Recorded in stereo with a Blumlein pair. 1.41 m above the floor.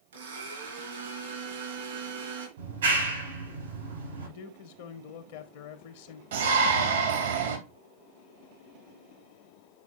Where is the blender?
65° right, 4 m.